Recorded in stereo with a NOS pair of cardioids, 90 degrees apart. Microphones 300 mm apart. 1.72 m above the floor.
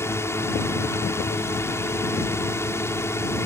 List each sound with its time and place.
0.0 s a drone: 10° left